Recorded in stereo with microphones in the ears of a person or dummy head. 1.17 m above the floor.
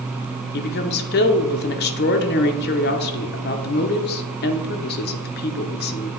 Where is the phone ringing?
No phone ringing in this recording.